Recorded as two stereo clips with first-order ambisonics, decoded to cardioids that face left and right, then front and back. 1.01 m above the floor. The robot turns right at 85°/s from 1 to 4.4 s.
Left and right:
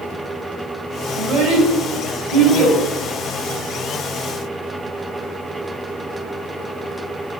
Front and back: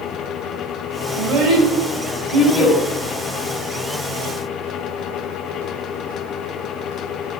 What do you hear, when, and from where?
1.1 s a child speaking: straight behind, 2.5 m; by 2.8 s 45° right, 2.5 m